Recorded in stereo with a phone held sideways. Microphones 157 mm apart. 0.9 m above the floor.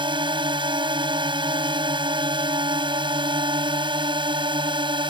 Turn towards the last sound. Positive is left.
turn(degrees=-30)  # may be behind; listen again after turning